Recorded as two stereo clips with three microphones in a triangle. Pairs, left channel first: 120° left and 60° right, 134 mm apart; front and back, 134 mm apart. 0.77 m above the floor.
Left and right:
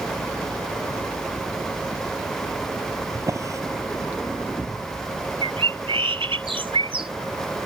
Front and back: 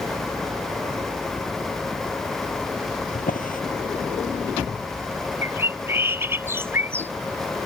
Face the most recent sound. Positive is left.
turn(degrees=-110)